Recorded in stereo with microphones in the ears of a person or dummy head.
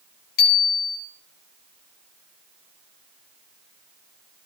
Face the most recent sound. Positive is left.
turn(degrees=55)  # may be behind; listen again after turning